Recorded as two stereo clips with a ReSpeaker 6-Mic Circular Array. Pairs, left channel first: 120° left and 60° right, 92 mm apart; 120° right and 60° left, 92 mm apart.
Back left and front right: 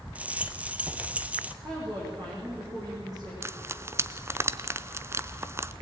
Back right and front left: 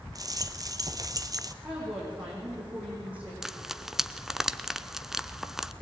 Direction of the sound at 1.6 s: 15° right.